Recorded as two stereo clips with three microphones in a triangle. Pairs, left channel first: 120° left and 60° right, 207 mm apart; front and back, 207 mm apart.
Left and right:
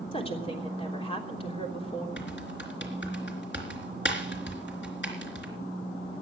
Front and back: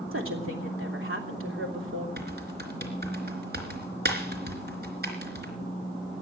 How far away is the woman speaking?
About 3 m.